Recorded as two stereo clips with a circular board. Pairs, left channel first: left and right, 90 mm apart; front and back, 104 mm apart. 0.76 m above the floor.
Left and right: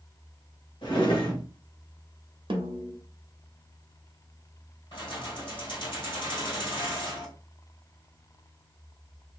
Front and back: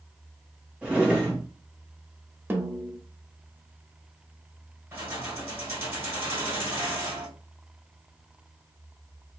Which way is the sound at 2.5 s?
110° right.